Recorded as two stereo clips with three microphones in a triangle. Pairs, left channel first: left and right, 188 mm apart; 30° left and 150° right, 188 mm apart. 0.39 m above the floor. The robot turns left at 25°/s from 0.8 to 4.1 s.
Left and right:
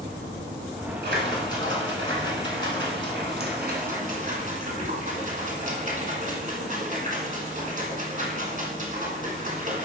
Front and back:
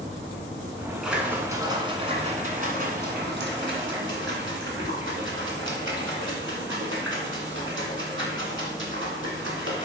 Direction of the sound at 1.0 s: 65° right.